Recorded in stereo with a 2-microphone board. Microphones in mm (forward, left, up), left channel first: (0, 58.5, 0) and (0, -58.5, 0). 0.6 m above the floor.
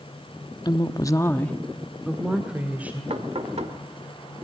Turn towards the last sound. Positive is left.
turn(degrees=-60)  # may be behind; listen again after turning